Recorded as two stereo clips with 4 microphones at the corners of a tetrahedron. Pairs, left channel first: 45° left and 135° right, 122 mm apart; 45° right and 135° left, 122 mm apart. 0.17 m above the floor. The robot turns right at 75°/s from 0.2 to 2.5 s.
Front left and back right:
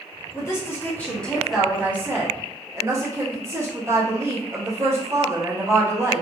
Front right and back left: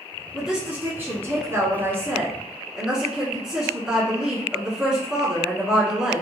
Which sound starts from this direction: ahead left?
A woman speaking, at 0.3 s.